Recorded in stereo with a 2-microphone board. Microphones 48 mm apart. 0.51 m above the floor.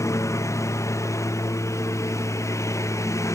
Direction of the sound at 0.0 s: 90° left.